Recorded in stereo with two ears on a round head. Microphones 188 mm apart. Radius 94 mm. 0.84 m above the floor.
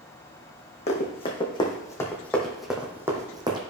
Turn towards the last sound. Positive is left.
turn(degrees=-25)  # may be behind; listen again after turning